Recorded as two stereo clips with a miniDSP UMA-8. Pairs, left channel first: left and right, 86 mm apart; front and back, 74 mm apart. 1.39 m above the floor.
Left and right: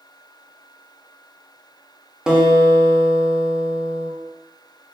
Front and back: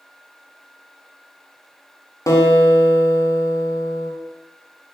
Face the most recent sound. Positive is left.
turn(degrees=-10)